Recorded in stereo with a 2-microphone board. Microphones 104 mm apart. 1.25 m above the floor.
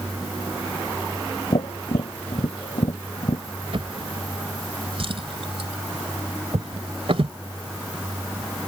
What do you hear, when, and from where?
1.5 s tapping: 70° left (ahead or behind)
3.7 s a drawer: 60° right (ahead or behind)